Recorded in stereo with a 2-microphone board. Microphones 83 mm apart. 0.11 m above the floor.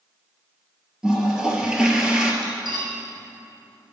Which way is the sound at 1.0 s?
10° right (ahead or behind).